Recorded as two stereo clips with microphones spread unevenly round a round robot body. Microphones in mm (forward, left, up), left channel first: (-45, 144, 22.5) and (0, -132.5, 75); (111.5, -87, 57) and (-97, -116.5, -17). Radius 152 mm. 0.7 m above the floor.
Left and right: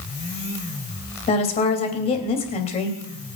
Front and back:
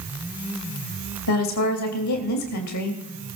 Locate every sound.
1.3 s a woman speaking: 30° left, 3 m